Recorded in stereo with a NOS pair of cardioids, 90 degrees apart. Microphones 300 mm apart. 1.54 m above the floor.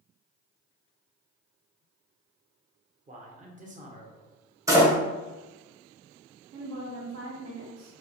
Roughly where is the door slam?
Ahead.